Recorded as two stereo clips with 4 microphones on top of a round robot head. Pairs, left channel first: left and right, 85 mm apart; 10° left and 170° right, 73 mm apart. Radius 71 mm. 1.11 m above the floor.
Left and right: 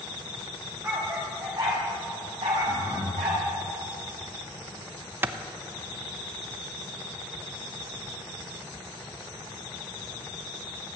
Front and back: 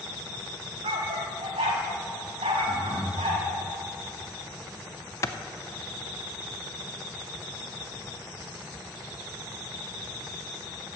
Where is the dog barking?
160° right, 1.7 m; by 3.4 s 135° right, 2.5 m.